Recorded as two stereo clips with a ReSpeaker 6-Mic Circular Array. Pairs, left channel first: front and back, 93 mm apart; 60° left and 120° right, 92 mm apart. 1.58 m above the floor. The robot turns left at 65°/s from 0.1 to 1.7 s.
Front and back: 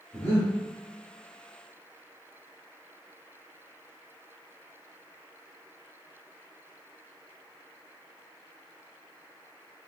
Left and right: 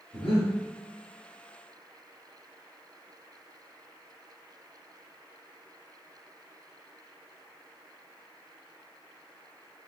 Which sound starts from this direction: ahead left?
Breathing, at 0.1 s.